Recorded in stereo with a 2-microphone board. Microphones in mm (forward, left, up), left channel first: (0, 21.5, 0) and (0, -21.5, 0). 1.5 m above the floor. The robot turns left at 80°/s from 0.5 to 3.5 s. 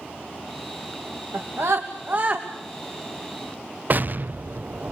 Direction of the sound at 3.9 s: 40° right (ahead or behind).